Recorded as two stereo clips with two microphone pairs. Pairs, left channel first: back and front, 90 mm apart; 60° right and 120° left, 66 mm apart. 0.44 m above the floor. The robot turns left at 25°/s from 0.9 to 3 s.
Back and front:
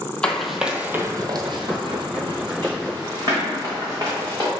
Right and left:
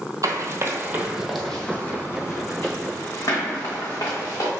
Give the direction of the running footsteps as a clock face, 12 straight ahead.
9 o'clock.